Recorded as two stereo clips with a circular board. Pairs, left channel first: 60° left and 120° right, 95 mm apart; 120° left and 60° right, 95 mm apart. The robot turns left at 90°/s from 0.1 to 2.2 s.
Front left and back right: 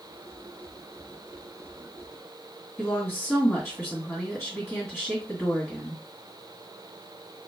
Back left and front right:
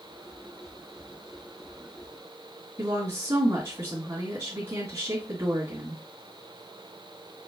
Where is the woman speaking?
20° right, 2 m.